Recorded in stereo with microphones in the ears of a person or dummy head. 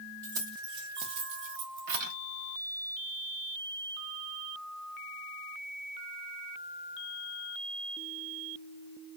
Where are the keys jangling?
20° right (ahead or behind), 1.7 m; by 2.1 s 50° right (ahead or behind), 1.6 m.